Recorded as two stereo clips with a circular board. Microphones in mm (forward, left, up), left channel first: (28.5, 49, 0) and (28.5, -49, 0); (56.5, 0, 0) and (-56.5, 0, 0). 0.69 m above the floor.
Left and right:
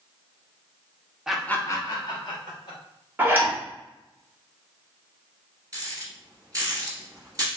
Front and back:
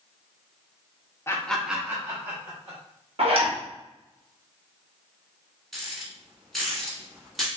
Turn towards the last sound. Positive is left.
turn(degrees=-90)